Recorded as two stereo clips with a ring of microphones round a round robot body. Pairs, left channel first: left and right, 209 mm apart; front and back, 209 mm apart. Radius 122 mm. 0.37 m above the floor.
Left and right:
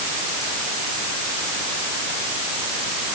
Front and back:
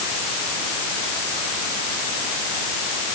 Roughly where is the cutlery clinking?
No cutlery clinking in this recording.